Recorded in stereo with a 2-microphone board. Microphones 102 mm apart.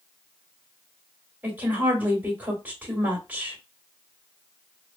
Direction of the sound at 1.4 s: 15° right (ahead or behind).